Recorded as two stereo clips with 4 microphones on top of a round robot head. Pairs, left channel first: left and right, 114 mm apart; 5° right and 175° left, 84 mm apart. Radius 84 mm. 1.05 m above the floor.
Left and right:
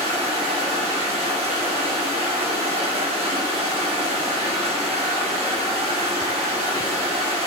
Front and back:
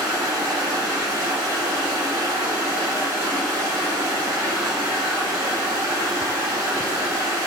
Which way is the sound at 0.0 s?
120° right.